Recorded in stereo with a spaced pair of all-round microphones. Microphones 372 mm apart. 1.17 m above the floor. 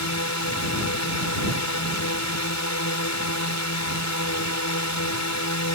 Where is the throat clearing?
No throat clearing in this recording.